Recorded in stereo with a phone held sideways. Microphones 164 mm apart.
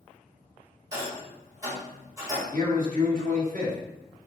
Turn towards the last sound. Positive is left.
turn(degrees=-60)  # may be behind; listen again after turning